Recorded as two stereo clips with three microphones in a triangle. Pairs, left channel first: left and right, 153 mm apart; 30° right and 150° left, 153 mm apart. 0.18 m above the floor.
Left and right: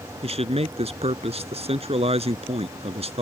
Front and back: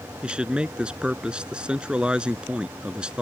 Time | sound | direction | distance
0.2 | a man speaking | 130° right | ?